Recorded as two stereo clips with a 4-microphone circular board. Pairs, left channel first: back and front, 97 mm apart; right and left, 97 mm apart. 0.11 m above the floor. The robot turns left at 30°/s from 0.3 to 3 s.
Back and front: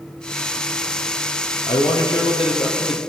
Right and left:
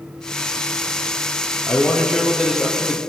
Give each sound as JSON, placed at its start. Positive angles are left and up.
{"t": 1.7, "sound": "a man speaking", "azimuth_deg": -160, "distance_m": 2.5}